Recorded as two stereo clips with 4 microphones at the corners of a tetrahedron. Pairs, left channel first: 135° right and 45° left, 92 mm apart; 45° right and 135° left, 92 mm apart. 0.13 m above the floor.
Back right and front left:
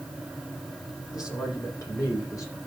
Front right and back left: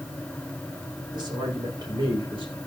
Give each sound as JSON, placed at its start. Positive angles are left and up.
{"t": 1.1, "sound": "a man speaking", "azimuth_deg": 175, "distance_m": 7.0}